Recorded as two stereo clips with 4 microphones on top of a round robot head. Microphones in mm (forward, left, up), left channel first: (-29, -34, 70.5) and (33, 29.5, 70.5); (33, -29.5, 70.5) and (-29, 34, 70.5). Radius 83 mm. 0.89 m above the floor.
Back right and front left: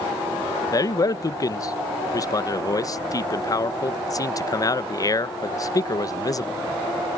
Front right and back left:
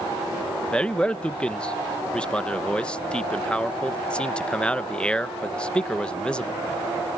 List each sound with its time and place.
0.7 s a man speaking: 120° right